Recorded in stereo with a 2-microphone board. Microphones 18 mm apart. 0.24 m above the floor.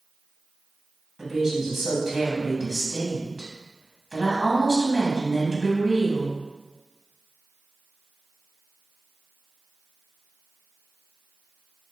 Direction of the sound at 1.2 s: 25° right (ahead or behind).